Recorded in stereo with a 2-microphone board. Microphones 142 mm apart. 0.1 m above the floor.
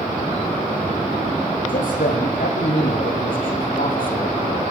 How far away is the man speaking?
About 7.5 m.